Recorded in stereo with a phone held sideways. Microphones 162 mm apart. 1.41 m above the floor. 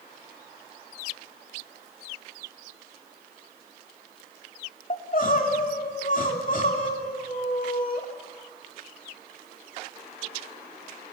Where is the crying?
55° left (ahead or behind), 2.5 m.